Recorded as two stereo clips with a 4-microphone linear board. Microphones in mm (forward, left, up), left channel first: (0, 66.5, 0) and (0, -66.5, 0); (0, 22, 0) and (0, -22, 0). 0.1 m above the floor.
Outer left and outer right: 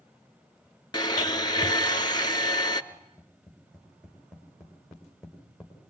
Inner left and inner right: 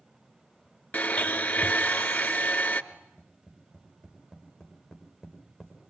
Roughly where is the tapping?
Centre.